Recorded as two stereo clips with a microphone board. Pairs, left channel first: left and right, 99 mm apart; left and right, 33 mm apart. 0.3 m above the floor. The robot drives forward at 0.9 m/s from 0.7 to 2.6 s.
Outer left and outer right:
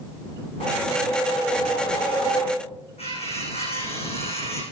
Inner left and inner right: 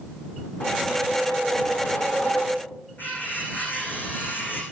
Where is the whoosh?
65° left (ahead or behind), 4 m; by 2.7 s 50° left (ahead or behind), 4.5 m.